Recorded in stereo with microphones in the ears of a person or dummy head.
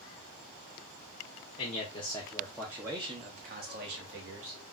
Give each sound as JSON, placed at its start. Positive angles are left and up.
{"t": 1.6, "sound": "a man speaking", "side_deg": 40, "distance_m": 0.9}